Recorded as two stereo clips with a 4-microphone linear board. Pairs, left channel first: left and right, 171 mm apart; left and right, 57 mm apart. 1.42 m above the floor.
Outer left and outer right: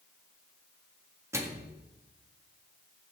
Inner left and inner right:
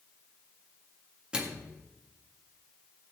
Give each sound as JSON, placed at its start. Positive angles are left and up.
{"t": 1.3, "sound": "a microwave", "side_deg": -15, "distance_m": 1.7}